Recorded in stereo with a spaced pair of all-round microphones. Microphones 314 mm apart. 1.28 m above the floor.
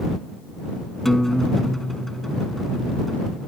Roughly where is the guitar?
Centre.